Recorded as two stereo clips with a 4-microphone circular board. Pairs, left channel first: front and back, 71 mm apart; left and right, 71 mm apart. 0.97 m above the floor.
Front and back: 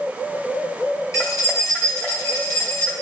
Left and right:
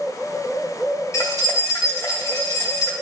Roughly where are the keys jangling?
Ahead left.